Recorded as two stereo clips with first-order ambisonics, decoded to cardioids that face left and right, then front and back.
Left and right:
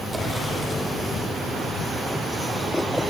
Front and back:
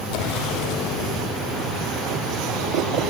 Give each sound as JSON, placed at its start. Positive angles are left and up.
{"t": 0.1, "sound": "an explosion", "azimuth_deg": -15, "distance_m": 4.0}